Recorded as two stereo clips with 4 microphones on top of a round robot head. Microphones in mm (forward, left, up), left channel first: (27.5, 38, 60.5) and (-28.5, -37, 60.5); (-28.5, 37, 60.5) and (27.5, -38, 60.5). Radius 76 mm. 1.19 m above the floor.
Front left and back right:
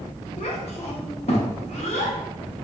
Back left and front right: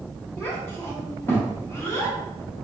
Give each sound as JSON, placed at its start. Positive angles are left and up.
{"t": 0.4, "sound": "a child speaking", "azimuth_deg": 60, "distance_m": 0.6}